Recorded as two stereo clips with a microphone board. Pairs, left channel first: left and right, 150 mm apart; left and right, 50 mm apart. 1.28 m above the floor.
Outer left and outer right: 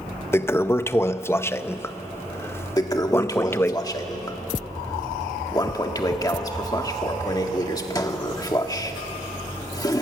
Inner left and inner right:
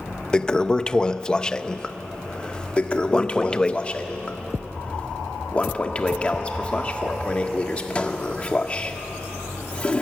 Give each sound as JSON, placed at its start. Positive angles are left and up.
{"t": 0.3, "sound": "a toilet flushing", "side_deg": 15, "distance_m": 0.5}
{"t": 2.8, "sound": "a toilet flushing", "side_deg": 25, "distance_m": 1.5}